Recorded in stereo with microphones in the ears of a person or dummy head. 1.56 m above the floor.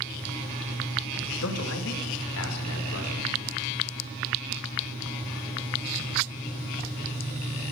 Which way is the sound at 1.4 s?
80° left.